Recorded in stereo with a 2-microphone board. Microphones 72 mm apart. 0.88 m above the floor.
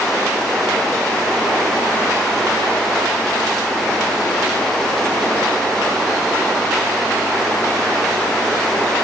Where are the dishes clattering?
No dishes clattering in this recording.